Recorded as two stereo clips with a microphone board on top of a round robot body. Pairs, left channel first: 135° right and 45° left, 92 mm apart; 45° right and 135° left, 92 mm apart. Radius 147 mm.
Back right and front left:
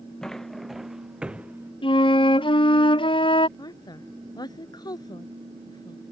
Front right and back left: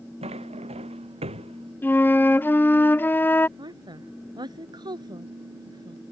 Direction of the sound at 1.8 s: 115° right.